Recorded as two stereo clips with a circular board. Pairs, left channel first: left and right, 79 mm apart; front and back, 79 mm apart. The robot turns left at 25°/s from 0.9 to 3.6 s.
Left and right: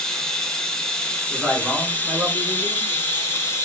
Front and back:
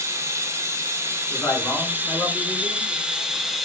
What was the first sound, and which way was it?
Running water, 170° left.